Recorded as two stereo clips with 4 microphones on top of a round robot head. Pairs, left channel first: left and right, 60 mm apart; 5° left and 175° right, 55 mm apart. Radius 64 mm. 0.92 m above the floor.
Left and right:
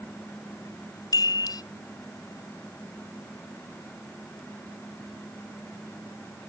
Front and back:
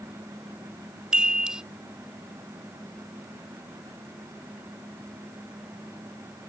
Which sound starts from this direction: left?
A chime, at 1.1 s.